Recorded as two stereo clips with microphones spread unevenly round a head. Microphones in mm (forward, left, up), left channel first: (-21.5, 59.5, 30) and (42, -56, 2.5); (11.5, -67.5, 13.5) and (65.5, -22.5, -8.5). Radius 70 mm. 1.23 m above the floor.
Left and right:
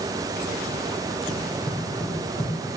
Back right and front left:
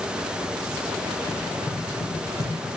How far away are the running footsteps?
About 3 m.